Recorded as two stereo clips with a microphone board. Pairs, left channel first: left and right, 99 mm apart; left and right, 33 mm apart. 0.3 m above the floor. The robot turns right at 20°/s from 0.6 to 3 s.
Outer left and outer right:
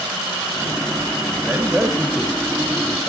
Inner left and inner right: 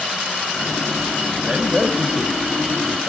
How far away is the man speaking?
About 1.5 m.